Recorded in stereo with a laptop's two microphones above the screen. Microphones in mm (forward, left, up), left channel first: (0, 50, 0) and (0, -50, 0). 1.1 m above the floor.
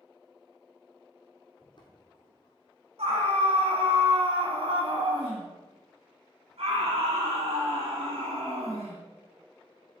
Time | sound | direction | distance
1.6 | footsteps | 45° left (ahead or behind) | 2.0 m
3.0 | a scream | 70° right (ahead or behind) | 1.8 m